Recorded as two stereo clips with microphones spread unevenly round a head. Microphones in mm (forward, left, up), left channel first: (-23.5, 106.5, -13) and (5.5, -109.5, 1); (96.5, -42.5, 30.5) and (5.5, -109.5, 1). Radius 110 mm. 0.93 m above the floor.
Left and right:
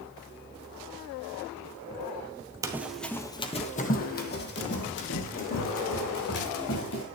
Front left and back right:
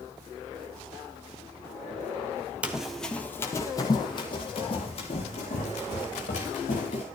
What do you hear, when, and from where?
2.6 s running footsteps: 45° right, 0.9 m; by 7.0 s 70° left, 3.5 m